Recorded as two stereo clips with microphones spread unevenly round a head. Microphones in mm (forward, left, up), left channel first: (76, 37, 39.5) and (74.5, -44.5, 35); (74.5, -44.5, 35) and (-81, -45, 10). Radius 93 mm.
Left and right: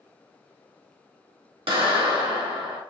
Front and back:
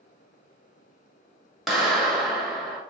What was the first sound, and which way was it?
A clap, 90° right.